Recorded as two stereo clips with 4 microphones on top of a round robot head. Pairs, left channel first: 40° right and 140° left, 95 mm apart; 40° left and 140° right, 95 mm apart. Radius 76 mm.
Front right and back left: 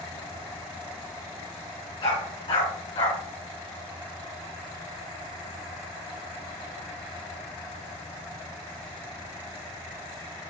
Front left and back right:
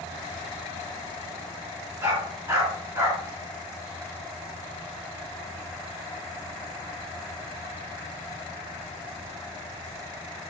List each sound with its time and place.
2.0 s a dog barking: 75° right, 3.5 m